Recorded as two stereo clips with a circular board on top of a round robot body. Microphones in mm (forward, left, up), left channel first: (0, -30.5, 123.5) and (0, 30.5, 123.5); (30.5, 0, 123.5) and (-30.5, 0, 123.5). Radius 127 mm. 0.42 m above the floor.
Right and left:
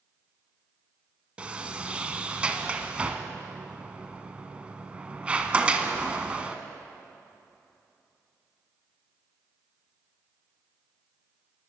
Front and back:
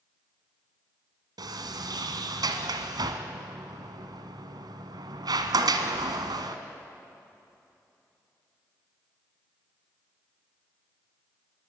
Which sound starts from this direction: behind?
A sliding door, at 1.4 s.